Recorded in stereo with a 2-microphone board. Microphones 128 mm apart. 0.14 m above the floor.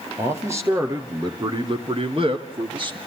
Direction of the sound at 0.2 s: 20° right (ahead or behind).